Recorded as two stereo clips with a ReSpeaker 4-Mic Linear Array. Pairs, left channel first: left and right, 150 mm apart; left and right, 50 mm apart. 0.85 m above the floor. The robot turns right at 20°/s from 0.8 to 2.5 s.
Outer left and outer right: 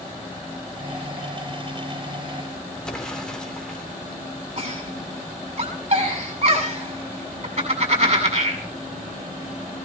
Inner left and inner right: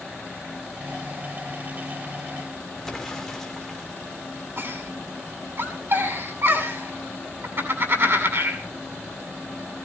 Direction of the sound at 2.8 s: 5° left (ahead or behind).